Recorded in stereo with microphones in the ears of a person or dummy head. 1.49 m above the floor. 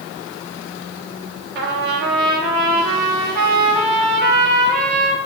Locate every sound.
1.6 s a trumpet: 55° right (ahead or behind), 1.3 m